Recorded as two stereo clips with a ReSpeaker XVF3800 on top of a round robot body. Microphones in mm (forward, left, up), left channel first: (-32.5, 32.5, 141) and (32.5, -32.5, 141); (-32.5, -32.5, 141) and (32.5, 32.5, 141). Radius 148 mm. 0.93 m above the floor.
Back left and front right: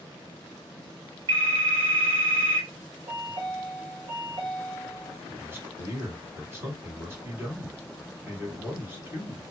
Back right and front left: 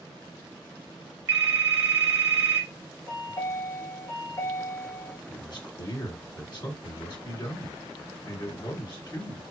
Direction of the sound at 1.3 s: 15° right.